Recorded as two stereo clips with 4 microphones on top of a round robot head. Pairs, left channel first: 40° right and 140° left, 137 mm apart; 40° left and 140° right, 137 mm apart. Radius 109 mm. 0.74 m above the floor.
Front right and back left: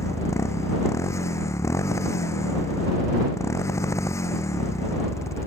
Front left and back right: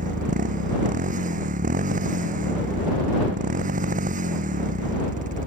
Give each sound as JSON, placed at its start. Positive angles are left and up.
{"t": 0.0, "sound": "a motorcycle", "azimuth_deg": -110}